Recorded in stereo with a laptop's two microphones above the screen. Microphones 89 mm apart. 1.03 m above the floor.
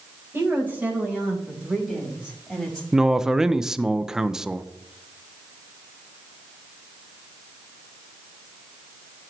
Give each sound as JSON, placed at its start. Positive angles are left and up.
{"t": 0.3, "sound": "a woman speaking", "side_deg": -25, "distance_m": 4.0}
{"t": 2.9, "sound": "a man speaking", "side_deg": -5, "distance_m": 0.6}